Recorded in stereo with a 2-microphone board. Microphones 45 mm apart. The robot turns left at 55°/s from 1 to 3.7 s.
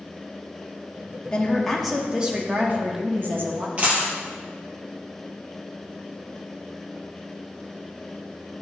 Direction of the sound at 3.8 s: 25° right (ahead or behind).